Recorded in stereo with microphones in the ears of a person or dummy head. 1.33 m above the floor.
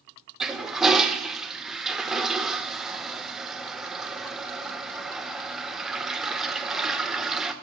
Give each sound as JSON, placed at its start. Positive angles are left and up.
{"t": 0.4, "sound": "a toilet flushing", "side_deg": -5, "distance_m": 0.8}